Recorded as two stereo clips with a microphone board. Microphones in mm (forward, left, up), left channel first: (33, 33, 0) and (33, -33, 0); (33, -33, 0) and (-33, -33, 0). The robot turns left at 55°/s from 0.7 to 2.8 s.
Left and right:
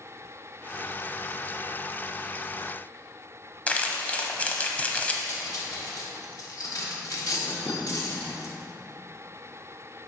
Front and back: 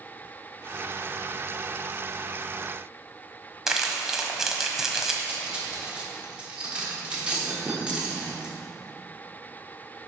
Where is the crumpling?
105° left, 1.0 m.